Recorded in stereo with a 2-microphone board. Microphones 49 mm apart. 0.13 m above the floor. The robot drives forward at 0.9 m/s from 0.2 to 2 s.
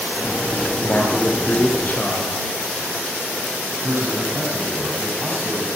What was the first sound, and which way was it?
A man speaking, 35° left (ahead or behind).